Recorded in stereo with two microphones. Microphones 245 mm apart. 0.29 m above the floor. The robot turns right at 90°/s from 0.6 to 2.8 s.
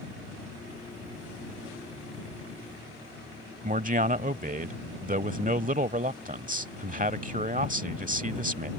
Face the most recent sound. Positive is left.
turn(degrees=-35)  # may be behind; listen again after turning